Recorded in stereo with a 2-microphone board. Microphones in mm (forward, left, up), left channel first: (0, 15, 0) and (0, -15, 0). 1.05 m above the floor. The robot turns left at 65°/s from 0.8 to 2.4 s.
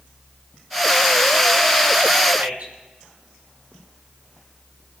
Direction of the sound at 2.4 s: 70° right (ahead or behind).